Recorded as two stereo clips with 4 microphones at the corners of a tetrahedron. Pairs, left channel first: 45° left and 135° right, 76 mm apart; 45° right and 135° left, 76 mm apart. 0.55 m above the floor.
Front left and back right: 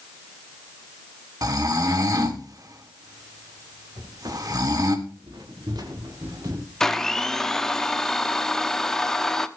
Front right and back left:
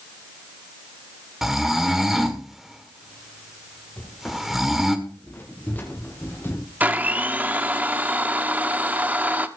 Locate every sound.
1.4 s snoring: 140° right, 1.7 m
4.0 s footsteps: 120° right, 6 m; by 6.6 s 105° right, 4 m
6.8 s a blender: 115° left, 0.9 m